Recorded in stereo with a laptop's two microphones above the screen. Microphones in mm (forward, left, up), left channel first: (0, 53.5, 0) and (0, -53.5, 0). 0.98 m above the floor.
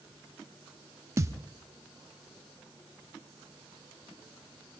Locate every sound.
1.2 s a thud: 30° right (ahead or behind), 0.7 m